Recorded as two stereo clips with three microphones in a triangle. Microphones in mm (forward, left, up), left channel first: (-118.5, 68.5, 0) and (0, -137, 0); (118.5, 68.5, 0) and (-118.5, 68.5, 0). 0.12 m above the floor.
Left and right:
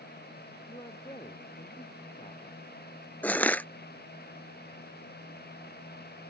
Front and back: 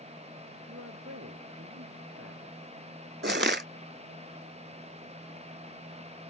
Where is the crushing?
160° right.